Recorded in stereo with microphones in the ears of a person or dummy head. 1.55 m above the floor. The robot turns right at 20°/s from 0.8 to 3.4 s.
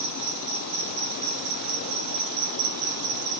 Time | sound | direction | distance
0.0 | an insect | 135° right | 4 m